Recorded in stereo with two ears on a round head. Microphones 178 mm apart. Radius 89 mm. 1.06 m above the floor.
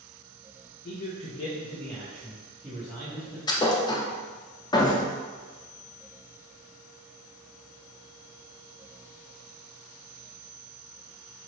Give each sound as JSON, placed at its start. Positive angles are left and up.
{"t": 0.8, "sound": "a man speaking", "side_deg": 55, "distance_m": 0.6}
{"t": 3.5, "sound": "a thud", "side_deg": 20, "distance_m": 0.6}